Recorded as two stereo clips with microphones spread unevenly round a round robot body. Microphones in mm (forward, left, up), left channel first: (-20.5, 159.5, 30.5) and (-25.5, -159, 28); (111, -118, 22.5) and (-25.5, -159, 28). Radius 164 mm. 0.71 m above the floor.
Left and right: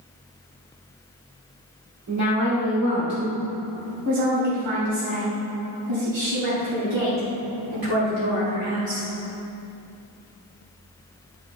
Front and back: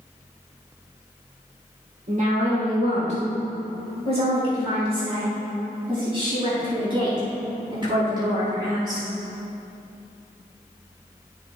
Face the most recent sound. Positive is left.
turn(degrees=-105)